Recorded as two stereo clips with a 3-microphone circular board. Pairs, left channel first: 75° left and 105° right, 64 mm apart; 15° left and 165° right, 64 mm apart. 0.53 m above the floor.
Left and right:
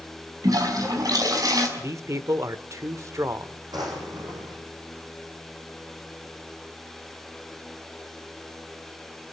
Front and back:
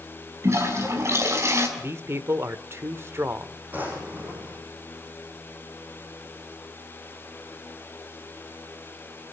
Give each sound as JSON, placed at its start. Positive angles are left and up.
{"t": 0.4, "sound": "a toilet flushing", "azimuth_deg": -120, "distance_m": 5.5}
{"t": 1.8, "sound": "a man speaking", "azimuth_deg": -125, "distance_m": 1.4}
{"t": 3.7, "sound": "a drawer", "azimuth_deg": -100, "distance_m": 9.0}